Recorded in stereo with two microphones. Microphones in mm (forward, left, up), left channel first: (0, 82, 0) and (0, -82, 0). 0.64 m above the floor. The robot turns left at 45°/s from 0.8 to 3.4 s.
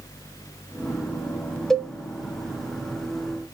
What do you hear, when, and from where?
1.7 s a cowbell: 5° left (ahead or behind), 0.6 m; by 1.9 s 5° right (ahead or behind), 0.6 m